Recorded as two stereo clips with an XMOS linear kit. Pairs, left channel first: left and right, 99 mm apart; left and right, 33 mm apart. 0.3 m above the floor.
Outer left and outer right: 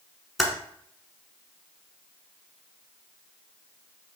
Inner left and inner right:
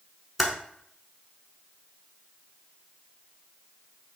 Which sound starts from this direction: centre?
Typing on a keyboard, at 0.4 s.